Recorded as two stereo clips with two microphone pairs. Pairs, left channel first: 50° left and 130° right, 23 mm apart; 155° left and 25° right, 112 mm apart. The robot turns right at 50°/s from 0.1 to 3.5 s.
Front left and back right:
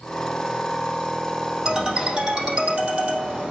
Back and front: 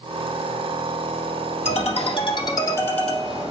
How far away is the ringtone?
About 4 m.